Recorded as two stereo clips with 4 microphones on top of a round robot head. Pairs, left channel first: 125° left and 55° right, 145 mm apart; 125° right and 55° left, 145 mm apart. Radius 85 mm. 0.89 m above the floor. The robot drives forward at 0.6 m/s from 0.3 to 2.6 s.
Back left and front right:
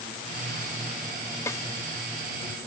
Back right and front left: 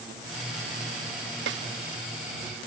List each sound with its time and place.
1.5 s a snare drum: 50° left; by 1.7 s 60° left